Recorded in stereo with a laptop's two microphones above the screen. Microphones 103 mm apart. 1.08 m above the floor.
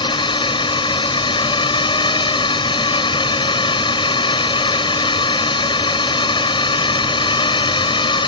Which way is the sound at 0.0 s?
55° left (ahead or behind).